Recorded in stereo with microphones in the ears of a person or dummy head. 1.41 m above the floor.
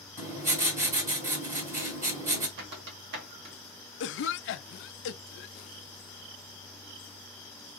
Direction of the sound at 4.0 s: 60° left (ahead or behind).